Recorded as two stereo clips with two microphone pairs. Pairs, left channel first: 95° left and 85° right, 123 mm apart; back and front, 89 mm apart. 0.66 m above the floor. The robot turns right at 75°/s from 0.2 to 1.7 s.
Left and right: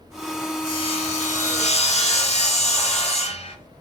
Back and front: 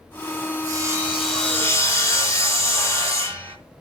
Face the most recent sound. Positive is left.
turn(degrees=120)